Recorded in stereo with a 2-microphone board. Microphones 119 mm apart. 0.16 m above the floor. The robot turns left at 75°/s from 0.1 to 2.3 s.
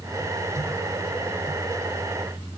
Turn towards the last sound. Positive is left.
No sound to turn to.